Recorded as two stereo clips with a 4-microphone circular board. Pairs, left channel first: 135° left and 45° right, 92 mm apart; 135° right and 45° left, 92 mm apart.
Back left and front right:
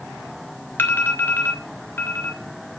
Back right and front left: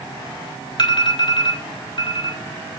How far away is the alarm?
About 3 m.